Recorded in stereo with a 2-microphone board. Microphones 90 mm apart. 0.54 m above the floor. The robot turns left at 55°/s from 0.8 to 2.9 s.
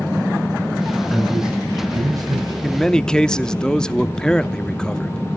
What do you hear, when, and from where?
1.1 s a man speaking: 10° left, 3.5 m; by 2.5 s 70° right, 3.5 m
2.6 s a man speaking: 5° left (ahead or behind), 0.7 m; by 5.4 s 10° left (ahead or behind), 0.7 m